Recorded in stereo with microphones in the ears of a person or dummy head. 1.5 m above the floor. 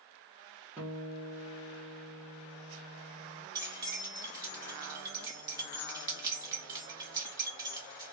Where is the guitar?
10° right (ahead or behind), 0.7 m.